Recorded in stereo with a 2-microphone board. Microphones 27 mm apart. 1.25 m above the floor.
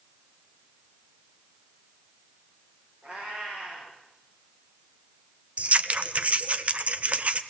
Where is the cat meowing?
40° right (ahead or behind), 8 m.